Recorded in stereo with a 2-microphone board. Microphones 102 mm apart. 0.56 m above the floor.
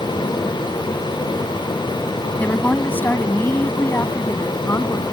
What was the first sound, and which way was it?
A woman speaking, 15° left (ahead or behind).